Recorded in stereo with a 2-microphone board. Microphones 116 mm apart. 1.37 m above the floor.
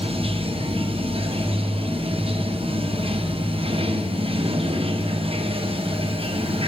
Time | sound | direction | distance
0.0 | running water | 55° right (ahead or behind) | 0.7 m